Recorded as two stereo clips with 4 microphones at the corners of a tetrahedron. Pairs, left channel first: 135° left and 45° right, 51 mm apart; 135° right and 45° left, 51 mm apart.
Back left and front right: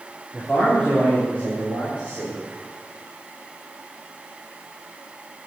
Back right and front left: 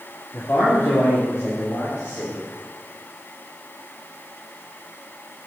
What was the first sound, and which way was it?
A man speaking, 150° right.